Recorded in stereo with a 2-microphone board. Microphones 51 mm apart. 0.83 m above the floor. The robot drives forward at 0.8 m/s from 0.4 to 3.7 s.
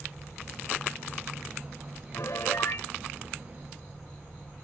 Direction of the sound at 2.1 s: 75° left (ahead or behind).